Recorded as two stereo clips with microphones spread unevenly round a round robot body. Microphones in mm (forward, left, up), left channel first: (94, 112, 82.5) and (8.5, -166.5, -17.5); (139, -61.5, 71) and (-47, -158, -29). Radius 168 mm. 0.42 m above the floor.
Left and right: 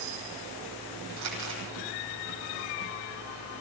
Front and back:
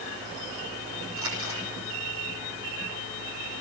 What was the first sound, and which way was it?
Crumpling, 145° right.